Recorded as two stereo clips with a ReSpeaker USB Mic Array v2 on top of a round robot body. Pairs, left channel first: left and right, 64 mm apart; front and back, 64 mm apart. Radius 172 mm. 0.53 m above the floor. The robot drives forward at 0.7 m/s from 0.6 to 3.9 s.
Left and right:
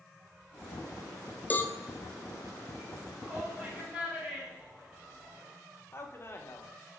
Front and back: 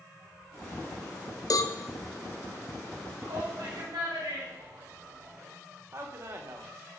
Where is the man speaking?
140° left, 2 m.